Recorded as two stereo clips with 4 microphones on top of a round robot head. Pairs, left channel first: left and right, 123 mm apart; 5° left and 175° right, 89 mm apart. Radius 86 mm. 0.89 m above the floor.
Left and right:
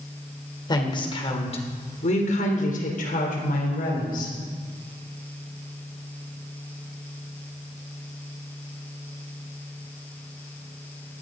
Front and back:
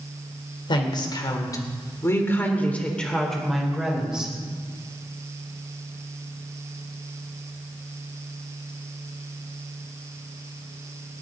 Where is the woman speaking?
35° left, 3 m; by 4.3 s 105° left, 4 m.